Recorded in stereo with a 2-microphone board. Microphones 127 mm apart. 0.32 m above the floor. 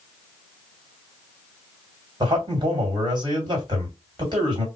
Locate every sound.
2.2 s a man speaking: 35° right (ahead or behind), 2 m